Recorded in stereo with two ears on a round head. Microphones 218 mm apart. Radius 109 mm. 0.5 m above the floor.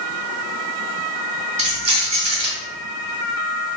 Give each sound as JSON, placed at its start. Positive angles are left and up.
{"t": 1.6, "sound": "keys jangling", "side_deg": -30, "distance_m": 1.6}